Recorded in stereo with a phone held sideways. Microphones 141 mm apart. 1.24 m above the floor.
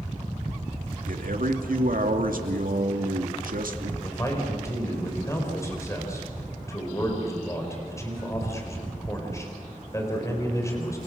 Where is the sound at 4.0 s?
20° left (ahead or behind), 5 m.